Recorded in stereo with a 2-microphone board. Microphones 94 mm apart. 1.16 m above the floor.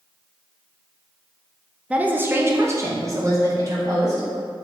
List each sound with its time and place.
1.9 s a woman speaking: 10° right (ahead or behind), 0.7 m; by 4.3 s 40° right (ahead or behind), 2 m